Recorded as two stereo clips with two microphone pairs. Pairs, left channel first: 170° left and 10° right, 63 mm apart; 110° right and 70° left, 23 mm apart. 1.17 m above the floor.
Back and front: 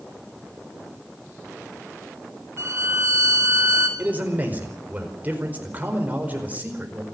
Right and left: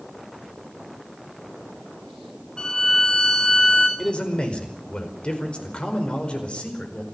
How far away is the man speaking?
About 4.5 m.